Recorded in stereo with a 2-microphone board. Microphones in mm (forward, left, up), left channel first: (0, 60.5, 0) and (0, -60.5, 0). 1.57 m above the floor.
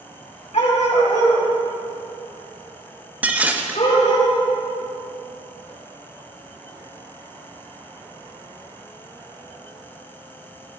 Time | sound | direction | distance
0.5 | a dog barking | 65° left (ahead or behind) | 3 m
3.2 | dishes clattering | 10° right (ahead or behind) | 1.1 m